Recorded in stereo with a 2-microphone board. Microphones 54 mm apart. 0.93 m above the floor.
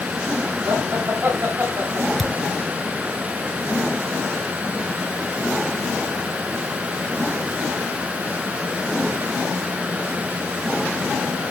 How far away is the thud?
About 1.6 m.